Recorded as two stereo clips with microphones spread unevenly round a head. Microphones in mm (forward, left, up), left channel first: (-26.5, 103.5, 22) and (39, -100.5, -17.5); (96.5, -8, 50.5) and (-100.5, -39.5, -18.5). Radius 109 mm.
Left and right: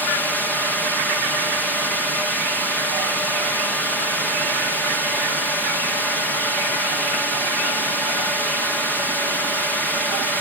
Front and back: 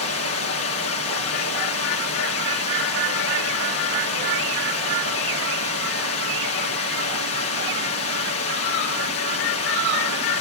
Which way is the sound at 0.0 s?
15° left.